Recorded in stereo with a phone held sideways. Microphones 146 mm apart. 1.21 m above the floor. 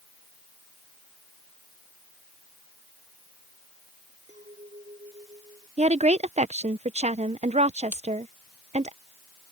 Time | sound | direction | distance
4.3 | a clink | 55° right (ahead or behind) | ?
5.8 | a woman speaking | 50° right (ahead or behind) | ?
7.9 | breaking glass | 15° right (ahead or behind) | ?